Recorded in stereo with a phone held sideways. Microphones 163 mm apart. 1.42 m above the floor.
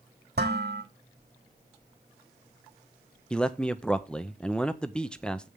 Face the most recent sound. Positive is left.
turn(degrees=5)  # may be behind; listen again after turning